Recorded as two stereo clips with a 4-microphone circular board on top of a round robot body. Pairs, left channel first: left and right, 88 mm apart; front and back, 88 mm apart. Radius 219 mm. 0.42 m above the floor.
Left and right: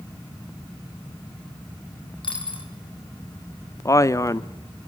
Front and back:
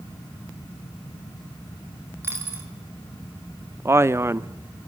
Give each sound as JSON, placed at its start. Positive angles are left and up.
{"t": 2.2, "sound": "a dropped coin", "azimuth_deg": 115, "distance_m": 6.0}
{"t": 3.9, "sound": "a man speaking", "azimuth_deg": 130, "distance_m": 1.0}